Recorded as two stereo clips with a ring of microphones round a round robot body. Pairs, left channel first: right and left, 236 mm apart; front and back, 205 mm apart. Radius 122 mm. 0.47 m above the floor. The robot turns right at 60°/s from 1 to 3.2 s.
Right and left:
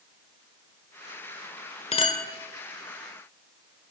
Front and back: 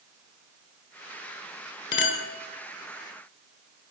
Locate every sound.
1.9 s a clink: 30° right, 1.5 m; by 2.2 s 10° right, 1.5 m